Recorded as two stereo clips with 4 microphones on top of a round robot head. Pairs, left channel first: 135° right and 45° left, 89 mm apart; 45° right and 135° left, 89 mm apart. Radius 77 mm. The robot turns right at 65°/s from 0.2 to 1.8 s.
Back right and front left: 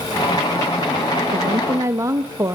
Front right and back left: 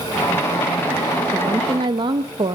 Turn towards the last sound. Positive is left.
turn(degrees=100)